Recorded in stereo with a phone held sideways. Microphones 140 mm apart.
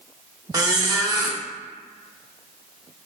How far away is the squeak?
About 0.6 m.